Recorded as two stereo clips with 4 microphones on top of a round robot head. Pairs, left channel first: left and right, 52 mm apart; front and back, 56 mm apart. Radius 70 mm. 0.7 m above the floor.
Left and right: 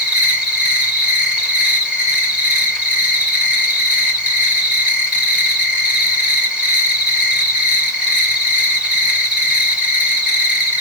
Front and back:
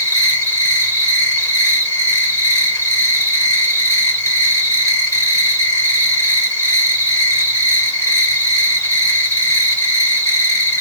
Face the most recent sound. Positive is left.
turn(degrees=-20)